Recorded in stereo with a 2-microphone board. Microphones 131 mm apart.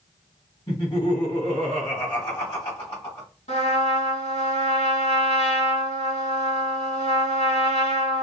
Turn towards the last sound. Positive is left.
turn(degrees=60)  # may be behind; listen again after turning